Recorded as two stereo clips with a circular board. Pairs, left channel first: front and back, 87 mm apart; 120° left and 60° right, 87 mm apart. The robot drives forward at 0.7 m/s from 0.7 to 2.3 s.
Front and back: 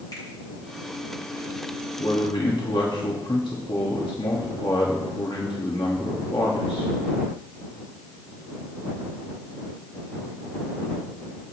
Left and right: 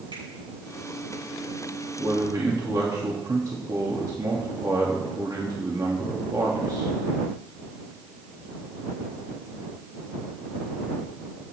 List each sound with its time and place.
0.1 s a finger snap: 45° right, 6 m
2.0 s a man speaking: 15° right, 1.8 m; by 6.9 s 20° right, 1.6 m